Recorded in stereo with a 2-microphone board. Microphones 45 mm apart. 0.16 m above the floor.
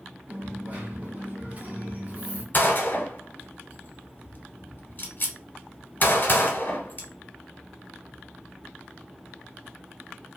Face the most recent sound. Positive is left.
turn(degrees=40)  # may be behind; listen again after turning